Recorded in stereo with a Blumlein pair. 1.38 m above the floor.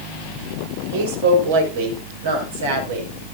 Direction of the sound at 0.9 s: 60° right.